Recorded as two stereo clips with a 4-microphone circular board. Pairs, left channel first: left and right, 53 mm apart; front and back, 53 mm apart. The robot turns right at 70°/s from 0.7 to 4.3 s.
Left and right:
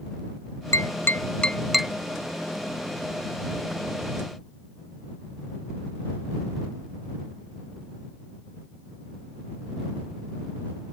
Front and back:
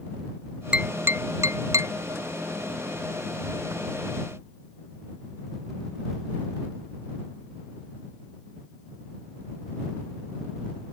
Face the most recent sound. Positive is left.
turn(degrees=0)